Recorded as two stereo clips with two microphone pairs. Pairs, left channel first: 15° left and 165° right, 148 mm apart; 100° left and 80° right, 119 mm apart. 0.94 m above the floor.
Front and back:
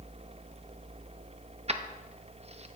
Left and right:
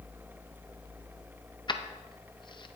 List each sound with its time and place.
1.7 s keys jangling: 150° left, 0.6 m